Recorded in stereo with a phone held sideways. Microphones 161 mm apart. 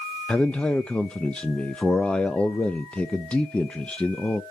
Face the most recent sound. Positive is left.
turn(degrees=5)  # may be behind; listen again after turning